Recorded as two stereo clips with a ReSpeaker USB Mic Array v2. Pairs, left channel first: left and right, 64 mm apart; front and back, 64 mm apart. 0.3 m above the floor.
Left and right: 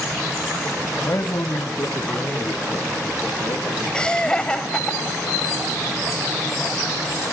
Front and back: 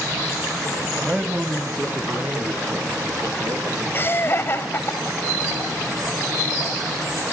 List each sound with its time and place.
1.0 s a man speaking: 105° left, 1.2 m; by 4.9 s 145° left, 7 m
3.9 s laughter: 20° left, 1.8 m